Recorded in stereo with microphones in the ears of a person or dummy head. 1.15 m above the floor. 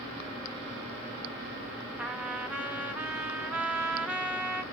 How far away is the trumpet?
About 0.6 m.